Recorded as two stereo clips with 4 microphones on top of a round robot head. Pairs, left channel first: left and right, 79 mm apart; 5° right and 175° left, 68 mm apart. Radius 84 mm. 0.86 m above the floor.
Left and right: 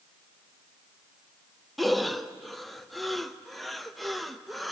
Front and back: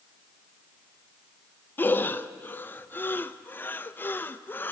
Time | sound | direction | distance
1.8 | breathing | 5° left | 0.7 m